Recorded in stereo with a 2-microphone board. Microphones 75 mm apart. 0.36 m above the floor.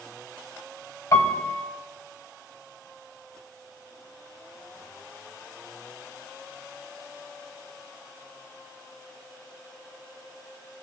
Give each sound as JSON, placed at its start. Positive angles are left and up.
{"t": 1.1, "sound": "a piano", "side_deg": 45, "distance_m": 1.0}